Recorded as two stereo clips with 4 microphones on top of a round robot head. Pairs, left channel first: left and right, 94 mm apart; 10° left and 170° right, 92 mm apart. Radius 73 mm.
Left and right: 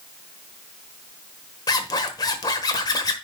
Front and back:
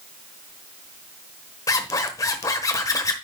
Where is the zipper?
55° left, 1.2 m.